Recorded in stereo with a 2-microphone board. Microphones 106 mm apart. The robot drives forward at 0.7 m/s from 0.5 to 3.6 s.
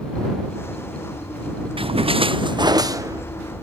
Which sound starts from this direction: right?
A splash, at 1.8 s.